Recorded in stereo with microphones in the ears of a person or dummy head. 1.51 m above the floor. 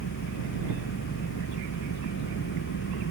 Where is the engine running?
60° left (ahead or behind).